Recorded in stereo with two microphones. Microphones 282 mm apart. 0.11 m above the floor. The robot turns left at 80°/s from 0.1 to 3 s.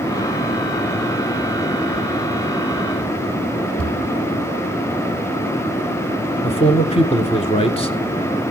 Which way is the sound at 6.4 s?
20° left (ahead or behind).